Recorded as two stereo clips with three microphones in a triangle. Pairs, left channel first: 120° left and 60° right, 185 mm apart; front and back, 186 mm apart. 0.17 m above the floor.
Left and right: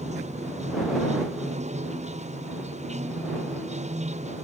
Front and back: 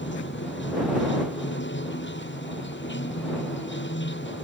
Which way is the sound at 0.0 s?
10° right.